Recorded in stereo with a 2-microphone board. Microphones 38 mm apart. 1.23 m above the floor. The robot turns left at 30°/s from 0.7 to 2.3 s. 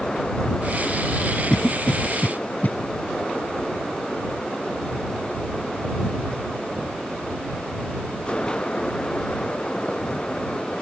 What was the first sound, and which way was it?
A cough, 30° left (ahead or behind).